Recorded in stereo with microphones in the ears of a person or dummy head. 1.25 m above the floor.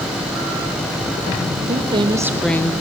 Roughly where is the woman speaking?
Right.